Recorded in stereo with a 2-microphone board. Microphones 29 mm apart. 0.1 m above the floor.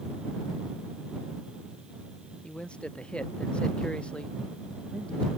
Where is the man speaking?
35° left (ahead or behind).